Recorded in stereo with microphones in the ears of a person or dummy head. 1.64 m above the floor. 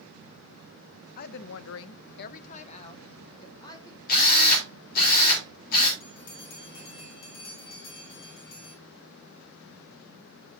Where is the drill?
55° left (ahead or behind), 4 m.